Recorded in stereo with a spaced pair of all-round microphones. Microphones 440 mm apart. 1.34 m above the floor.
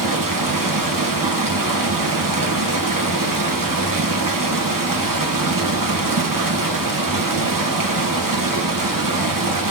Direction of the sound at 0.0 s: 45° right (ahead or behind).